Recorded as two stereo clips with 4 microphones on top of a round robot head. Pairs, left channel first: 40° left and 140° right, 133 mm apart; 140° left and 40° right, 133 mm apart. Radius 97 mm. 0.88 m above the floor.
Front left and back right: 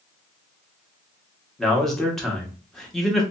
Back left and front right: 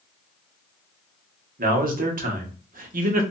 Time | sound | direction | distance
1.6 | a man speaking | 50° right | 1.1 m